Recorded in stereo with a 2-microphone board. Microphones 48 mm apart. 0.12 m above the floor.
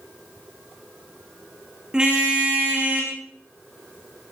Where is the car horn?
15° right (ahead or behind), 4.5 m; by 3.1 s 30° right (ahead or behind), 4.5 m.